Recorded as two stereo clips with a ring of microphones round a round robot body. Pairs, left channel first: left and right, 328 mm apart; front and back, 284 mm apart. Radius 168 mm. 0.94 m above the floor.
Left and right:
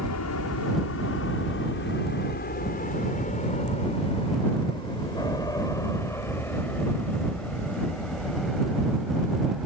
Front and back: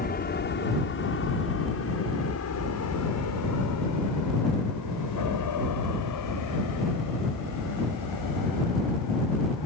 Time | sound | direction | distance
0.0 | an aircraft | 55° left | ?